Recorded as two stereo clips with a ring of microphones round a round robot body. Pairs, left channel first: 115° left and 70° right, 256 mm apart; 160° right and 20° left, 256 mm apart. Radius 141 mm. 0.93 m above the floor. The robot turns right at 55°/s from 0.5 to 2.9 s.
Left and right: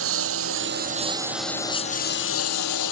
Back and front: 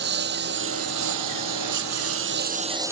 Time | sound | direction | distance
0.0 | a lawn mower | 30° right | ?